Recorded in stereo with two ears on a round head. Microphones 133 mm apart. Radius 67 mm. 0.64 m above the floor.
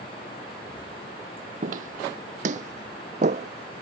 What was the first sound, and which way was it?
Footsteps, 60° right (ahead or behind).